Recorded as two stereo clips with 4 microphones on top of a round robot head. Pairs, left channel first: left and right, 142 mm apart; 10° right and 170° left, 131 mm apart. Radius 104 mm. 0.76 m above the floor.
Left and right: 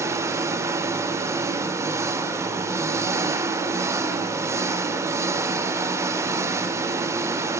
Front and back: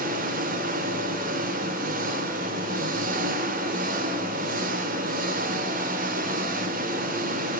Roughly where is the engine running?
Behind.